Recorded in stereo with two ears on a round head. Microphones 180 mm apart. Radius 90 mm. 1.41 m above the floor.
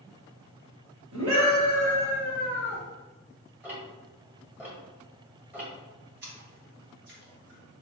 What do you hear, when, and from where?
1.1 s a scream: 80° right, 1.4 m; by 2.8 s 60° right (ahead or behind), 3.5 m
3.6 s ticking: 10° right (ahead or behind), 1.6 m
6.2 s a splash: 55° right (ahead or behind), 1.7 m